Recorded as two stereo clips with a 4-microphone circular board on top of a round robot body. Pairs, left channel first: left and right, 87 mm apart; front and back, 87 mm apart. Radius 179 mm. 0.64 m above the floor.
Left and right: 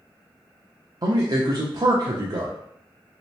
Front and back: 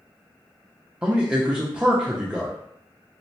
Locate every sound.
1.0 s a man speaking: 105° right, 0.7 m